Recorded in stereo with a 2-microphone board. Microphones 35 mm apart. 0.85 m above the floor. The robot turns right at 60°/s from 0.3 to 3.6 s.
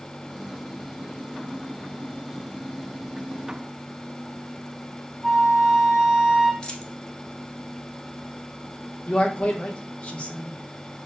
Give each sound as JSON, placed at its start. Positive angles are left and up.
{"t": 5.2, "sound": "a flute", "side_deg": 0, "distance_m": 0.8}
{"t": 6.6, "sound": "a dropped coin", "side_deg": 25, "distance_m": 0.8}
{"t": 9.1, "sound": "a man speaking", "side_deg": 35, "distance_m": 1.1}